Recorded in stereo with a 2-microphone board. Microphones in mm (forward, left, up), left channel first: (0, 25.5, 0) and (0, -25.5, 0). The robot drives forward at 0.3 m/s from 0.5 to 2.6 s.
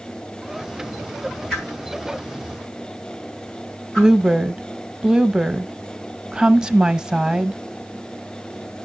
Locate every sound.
1.5 s a whoosh: 5° left (ahead or behind), 4.5 m
4.0 s a woman speaking: 15° right (ahead or behind), 0.7 m